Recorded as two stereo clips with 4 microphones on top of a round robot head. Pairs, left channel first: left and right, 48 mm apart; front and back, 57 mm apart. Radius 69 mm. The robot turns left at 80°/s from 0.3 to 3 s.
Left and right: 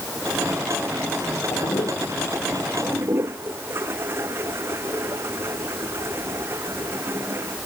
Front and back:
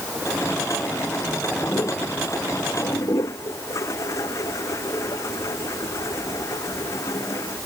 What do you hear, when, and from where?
1.5 s a toilet flushing: 75° left; by 7.6 s 40° right